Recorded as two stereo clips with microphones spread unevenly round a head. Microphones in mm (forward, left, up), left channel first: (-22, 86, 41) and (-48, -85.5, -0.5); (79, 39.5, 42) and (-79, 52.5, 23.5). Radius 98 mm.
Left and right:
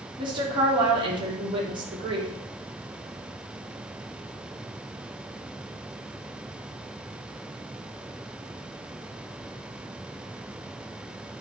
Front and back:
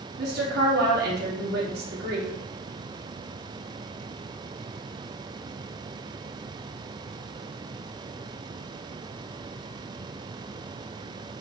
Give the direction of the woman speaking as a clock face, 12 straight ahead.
5 o'clock.